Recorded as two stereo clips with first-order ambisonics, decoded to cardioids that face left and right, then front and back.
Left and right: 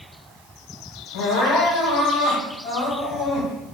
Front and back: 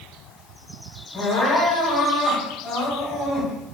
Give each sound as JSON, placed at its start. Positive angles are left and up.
{"t": 1.1, "sound": "crying", "azimuth_deg": 65, "distance_m": 1.7}